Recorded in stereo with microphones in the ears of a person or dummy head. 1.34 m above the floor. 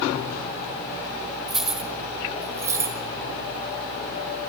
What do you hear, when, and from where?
1.5 s keys jangling: 5° right (ahead or behind), 3 m; by 3.0 s 20° right (ahead or behind), 2.5 m